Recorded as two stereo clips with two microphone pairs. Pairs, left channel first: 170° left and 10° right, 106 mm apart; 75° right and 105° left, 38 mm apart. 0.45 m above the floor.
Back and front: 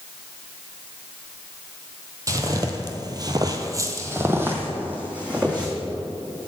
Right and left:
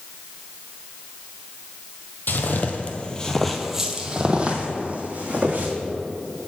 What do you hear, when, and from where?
2.3 s footsteps: 65° right, 0.7 m; by 5.7 s 70° left, 1.4 m